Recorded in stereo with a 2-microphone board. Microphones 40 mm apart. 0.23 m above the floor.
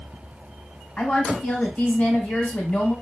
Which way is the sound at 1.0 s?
35° left (ahead or behind).